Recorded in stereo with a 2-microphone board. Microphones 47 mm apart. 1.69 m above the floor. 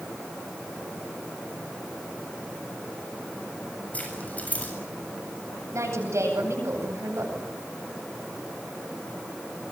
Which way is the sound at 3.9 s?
30° left (ahead or behind).